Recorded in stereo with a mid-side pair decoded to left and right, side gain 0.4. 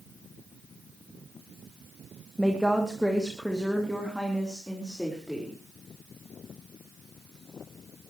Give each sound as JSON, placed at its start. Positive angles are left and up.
{"t": 2.4, "sound": "a woman speaking", "azimuth_deg": -5, "distance_m": 2.0}